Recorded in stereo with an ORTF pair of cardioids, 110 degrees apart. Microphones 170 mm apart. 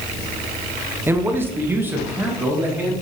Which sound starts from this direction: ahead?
A man speaking, at 1.1 s.